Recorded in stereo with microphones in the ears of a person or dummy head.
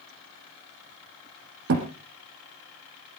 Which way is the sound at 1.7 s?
60° right (ahead or behind).